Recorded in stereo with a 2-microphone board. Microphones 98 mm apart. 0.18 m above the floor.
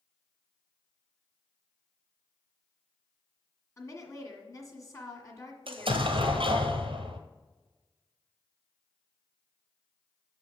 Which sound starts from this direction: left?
A woman speaking, at 3.8 s.